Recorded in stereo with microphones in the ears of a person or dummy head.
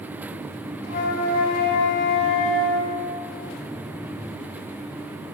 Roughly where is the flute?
Left.